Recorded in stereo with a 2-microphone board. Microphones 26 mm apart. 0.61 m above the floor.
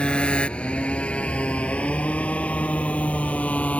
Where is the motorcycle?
45° left (ahead or behind); by 3.8 s 65° left (ahead or behind).